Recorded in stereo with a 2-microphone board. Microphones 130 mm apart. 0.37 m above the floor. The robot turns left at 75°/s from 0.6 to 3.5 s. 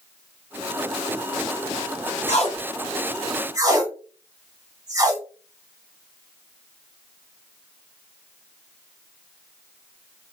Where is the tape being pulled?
65° left (ahead or behind), 0.7 m; by 5.2 s 30° right (ahead or behind), 0.7 m.